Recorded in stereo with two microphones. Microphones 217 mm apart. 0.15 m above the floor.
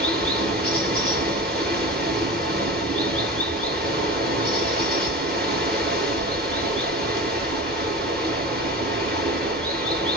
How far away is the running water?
About 1.1 m.